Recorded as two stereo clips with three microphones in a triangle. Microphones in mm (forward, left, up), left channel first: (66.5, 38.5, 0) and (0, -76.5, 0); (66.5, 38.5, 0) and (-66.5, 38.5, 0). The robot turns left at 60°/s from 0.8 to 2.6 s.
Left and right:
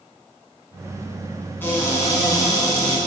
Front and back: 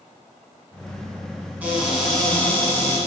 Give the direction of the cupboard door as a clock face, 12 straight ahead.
8 o'clock.